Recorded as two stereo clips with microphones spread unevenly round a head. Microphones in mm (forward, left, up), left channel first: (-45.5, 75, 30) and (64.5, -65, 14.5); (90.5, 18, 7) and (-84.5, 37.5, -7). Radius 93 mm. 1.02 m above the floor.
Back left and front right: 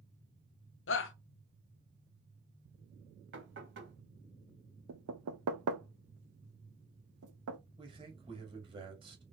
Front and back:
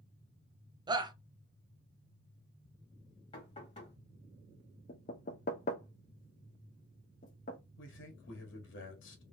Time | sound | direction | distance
0.9 | a shout | 105° left | 0.8 m
3.3 | knocking | 70° right | 1.6 m
4.9 | knocking | 55° right | 0.6 m
7.8 | a man speaking | 15° left | 1.4 m